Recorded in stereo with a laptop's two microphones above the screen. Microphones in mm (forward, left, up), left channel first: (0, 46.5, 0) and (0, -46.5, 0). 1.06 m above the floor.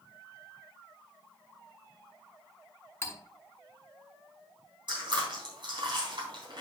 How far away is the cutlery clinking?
About 2 m.